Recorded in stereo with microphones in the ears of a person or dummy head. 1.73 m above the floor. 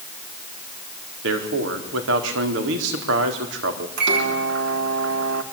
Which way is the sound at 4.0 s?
60° right (ahead or behind).